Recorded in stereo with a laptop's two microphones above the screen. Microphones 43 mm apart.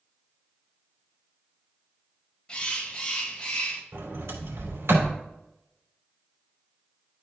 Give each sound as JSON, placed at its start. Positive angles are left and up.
{"t": 2.5, "sound": "a bird", "side_deg": 25, "distance_m": 1.1}
{"t": 3.9, "sound": "a sliding door", "side_deg": -80, "distance_m": 2.5}